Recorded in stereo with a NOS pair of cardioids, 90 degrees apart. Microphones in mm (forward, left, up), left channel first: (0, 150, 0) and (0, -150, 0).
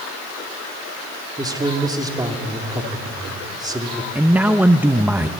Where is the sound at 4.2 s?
5° right, 0.7 m.